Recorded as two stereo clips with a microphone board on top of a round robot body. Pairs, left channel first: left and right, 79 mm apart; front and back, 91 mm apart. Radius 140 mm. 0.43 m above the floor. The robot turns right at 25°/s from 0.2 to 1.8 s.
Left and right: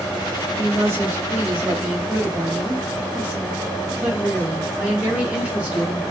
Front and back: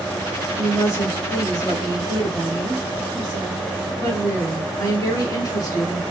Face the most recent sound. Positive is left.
turn(degrees=-20)